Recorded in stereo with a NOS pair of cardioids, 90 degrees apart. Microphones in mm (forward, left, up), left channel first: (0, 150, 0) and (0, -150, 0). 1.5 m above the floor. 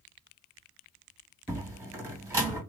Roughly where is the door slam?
Ahead.